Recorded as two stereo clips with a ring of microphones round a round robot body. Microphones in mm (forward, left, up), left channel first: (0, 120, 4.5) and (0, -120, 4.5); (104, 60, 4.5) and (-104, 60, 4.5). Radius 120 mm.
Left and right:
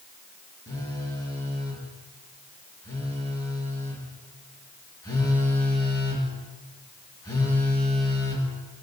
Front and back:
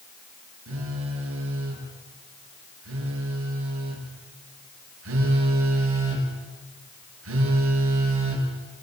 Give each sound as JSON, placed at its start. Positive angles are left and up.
{"t": 0.7, "sound": "a phone buzzing", "azimuth_deg": 165, "distance_m": 7.0}